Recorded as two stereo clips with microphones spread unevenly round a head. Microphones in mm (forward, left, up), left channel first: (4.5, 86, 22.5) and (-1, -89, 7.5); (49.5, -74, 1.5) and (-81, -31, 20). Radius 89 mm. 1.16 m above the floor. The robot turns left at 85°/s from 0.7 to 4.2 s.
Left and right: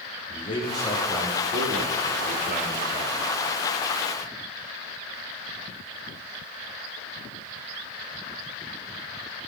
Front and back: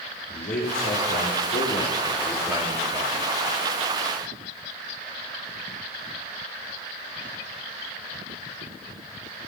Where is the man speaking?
25° left, 3 m; by 3.1 s 175° left, 3 m.